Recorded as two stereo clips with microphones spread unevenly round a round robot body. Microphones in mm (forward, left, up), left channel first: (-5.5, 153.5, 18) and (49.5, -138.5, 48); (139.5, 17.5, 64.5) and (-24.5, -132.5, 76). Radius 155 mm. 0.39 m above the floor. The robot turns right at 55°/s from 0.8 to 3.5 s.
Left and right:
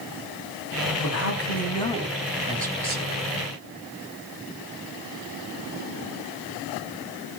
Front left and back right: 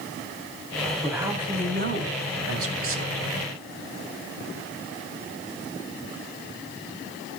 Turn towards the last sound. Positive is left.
turn(degrees=-95)